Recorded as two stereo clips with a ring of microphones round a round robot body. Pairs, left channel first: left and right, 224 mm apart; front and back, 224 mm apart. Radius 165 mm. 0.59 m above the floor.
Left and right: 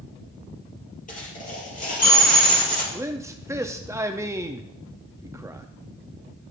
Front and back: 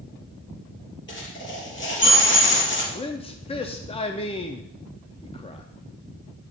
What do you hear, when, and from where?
1.1 s a dropped coin: 35° left, 4.5 m
2.9 s a man speaking: 25° right, 0.6 m